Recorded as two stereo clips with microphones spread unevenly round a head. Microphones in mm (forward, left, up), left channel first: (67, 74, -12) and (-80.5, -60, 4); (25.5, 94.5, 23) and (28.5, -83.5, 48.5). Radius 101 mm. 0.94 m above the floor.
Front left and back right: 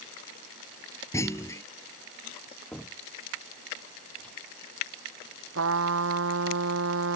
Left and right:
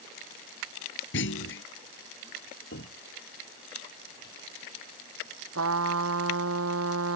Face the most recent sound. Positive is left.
turn(degrees=-105)